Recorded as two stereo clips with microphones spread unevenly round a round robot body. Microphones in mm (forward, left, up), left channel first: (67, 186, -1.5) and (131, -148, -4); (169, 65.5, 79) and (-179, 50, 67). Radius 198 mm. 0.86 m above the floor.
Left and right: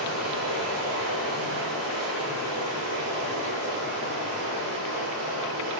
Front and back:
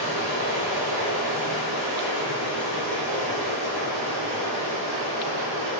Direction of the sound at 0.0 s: 140° right.